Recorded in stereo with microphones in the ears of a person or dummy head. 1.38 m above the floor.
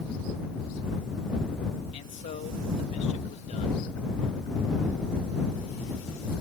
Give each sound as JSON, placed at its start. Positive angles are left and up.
{"t": 1.9, "sound": "a man speaking", "side_deg": 30}